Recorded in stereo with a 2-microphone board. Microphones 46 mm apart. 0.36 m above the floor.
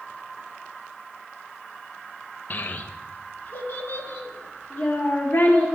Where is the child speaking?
40° left (ahead or behind), 0.6 m; by 5.7 s 35° left (ahead or behind), 3.5 m.